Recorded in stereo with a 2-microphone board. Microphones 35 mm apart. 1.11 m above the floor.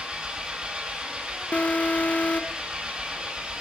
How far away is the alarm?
About 0.9 m.